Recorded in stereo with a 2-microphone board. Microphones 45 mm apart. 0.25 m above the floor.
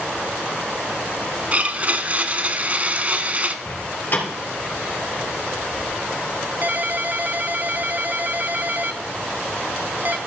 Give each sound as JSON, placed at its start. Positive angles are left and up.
{"t": 1.5, "sound": "a blender", "side_deg": -35, "distance_m": 0.7}
{"t": 3.6, "sound": "a door slam", "side_deg": 50, "distance_m": 3.5}
{"t": 6.6, "sound": "a ringtone", "side_deg": -40, "distance_m": 0.5}